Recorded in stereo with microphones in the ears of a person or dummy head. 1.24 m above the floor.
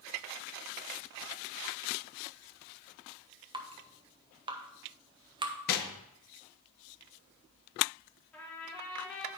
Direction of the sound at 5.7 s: 50° left (ahead or behind).